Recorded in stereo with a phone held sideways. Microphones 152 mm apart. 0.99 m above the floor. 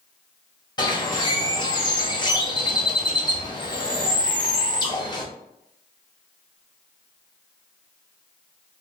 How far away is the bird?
About 0.9 m.